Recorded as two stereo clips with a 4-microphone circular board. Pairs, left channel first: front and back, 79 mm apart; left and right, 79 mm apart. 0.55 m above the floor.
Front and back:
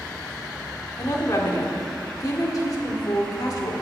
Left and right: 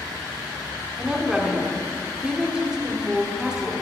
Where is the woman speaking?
15° right, 1.4 m.